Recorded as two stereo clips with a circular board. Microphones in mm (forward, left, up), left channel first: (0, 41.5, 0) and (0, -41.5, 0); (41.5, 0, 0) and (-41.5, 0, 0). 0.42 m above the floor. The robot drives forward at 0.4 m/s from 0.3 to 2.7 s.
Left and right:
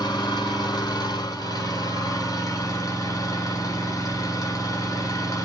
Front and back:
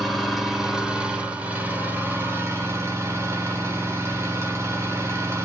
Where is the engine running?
90° left, 1.5 m; by 5.5 s 130° left, 1.7 m.